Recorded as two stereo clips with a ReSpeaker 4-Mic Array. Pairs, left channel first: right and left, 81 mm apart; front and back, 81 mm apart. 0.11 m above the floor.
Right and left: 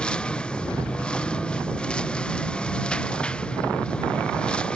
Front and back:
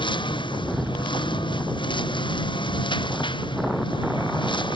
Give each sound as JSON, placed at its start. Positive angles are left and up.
{"t": 0.0, "sound": "a lawn mower", "azimuth_deg": -15}